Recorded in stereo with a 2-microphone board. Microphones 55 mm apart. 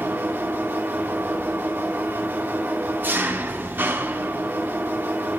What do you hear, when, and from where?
0.0 s an engine running: 35° right (ahead or behind), 1.5 m